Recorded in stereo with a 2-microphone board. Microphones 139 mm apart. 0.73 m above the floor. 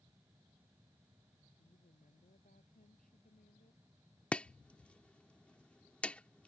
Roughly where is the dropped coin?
I don't hear a dropped coin.